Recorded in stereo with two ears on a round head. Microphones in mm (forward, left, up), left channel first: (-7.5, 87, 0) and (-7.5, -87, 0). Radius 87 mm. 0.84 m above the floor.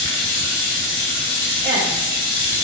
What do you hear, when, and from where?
0.0 s running water: 70° left (ahead or behind), 3 m
1.6 s a woman speaking: 5° left (ahead or behind), 2.5 m